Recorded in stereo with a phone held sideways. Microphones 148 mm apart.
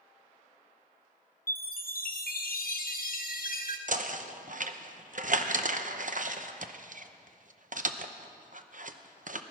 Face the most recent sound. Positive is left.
turn(degrees=-60)  # may be behind; listen again after turning